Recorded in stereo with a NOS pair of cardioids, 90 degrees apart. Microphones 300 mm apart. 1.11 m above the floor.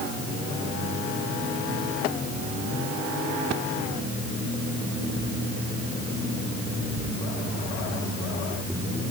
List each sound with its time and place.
Only background noise.